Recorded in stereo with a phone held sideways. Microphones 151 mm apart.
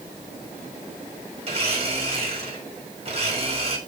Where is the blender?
40° right (ahead or behind), 3.5 m.